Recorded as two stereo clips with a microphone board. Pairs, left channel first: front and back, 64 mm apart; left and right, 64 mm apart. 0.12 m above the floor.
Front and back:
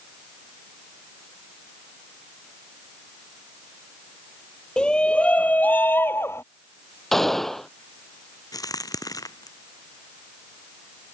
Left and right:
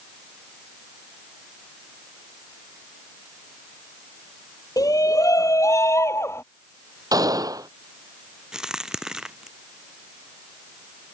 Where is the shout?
75° left; by 6.4 s 45° left.